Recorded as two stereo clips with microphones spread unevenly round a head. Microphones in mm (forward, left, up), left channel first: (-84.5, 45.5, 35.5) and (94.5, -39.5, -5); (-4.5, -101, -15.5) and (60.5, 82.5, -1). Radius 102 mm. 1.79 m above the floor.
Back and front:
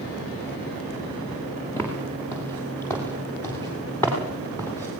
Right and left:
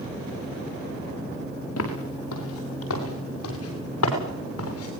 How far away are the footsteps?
About 7 m.